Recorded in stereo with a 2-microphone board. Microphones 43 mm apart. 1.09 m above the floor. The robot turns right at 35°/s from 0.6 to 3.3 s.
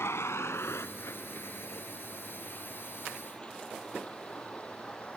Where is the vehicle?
80° left; by 5.2 s 30° left (ahead or behind).